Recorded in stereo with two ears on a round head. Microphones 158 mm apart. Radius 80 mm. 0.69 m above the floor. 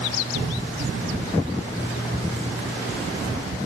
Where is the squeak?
60° right (ahead or behind), 9 m.